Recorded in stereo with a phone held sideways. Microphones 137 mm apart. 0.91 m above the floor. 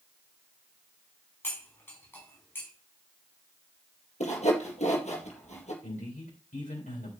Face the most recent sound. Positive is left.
turn(degrees=70)  # may be behind; listen again after turning